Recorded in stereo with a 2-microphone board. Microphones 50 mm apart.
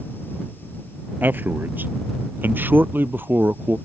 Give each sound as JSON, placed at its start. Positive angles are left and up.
{"t": 1.2, "sound": "a man speaking", "side_deg": -45}